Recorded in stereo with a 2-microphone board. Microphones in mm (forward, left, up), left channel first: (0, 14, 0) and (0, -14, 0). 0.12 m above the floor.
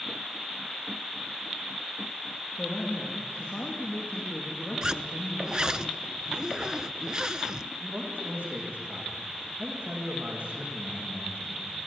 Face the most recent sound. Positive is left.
turn(degrees=-80)